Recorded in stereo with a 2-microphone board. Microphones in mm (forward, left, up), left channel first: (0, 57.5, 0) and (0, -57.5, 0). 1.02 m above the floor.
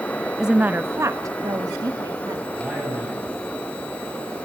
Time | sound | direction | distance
0.4 | a woman speaking | 5° right (ahead or behind) | 0.6 m
2.5 | a man speaking | 5° right (ahead or behind) | 7.5 m